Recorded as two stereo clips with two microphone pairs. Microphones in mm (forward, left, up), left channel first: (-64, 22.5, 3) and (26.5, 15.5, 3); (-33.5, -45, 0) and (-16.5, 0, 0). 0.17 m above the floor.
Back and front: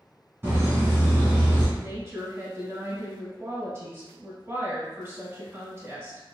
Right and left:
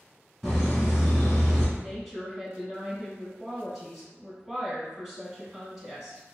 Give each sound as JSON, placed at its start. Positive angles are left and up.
{"t": 0.4, "sound": "laughter", "azimuth_deg": -20, "distance_m": 1.7}
{"t": 1.8, "sound": "a woman speaking", "azimuth_deg": -15, "distance_m": 1.7}